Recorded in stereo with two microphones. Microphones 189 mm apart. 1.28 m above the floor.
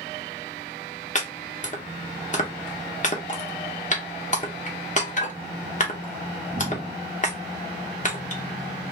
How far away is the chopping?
About 0.7 m.